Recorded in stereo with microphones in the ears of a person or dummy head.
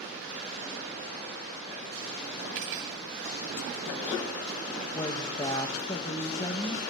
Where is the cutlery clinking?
70° right (ahead or behind), 2.5 m.